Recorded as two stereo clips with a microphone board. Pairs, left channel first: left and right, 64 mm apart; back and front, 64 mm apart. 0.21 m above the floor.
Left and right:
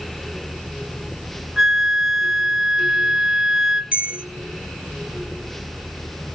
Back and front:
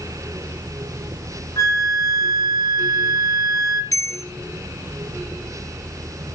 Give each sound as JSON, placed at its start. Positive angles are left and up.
{"t": 1.6, "sound": "a flute", "azimuth_deg": -175, "distance_m": 0.8}
{"t": 3.9, "sound": "a bell", "azimuth_deg": -155, "distance_m": 1.5}